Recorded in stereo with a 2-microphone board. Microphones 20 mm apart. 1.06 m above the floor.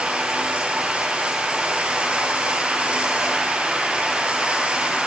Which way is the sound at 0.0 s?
80° right.